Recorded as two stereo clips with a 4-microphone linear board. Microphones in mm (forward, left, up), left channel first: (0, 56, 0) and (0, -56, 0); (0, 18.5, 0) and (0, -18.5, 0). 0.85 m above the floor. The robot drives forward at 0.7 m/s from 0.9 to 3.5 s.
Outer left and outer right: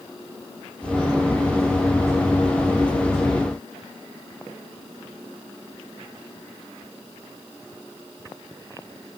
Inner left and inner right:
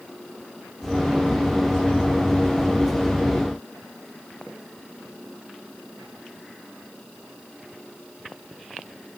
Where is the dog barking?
I don't hear a dog barking.